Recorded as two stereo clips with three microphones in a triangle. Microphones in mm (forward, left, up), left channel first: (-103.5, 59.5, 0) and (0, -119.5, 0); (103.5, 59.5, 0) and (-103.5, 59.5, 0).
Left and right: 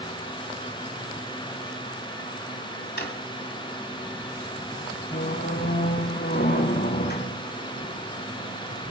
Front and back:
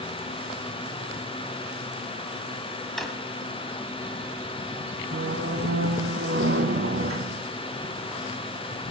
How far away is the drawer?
About 1.5 m.